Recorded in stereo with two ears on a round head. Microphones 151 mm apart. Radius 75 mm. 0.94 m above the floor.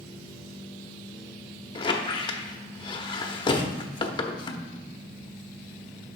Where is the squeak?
25° left (ahead or behind), 0.8 m.